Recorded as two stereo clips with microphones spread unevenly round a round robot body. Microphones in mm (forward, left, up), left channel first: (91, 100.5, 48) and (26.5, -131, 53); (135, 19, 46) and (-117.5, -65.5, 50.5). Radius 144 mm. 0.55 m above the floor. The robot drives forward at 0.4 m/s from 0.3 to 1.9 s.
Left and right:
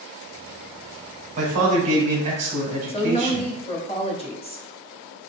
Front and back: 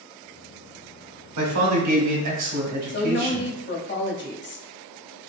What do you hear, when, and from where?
1.4 s a man speaking: 165° right, 1.2 m
2.9 s a woman speaking: 25° left, 0.8 m